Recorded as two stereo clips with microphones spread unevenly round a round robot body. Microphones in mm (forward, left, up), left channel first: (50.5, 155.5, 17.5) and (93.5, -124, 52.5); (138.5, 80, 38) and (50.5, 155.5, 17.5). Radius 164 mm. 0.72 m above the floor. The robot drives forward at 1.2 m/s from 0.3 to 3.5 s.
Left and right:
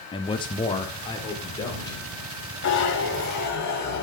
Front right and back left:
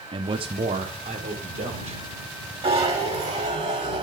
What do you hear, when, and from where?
0.1 s a man speaking: 165° left, 0.7 m; by 2.0 s 175° left, 2.5 m
2.6 s a zipper: 135° left, 1.7 m; by 4.0 s 155° left, 2.5 m